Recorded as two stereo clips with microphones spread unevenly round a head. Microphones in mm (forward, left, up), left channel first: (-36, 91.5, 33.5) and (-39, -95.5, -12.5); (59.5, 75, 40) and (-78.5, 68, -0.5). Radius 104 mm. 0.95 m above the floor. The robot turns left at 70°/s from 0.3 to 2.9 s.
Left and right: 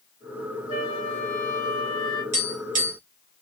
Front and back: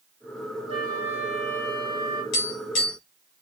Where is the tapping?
15° right, 2 m; by 3.0 s 55° right, 2 m.